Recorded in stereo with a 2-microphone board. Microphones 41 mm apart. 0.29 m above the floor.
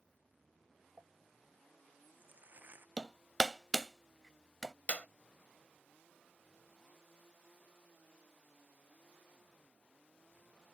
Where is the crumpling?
45° right (ahead or behind).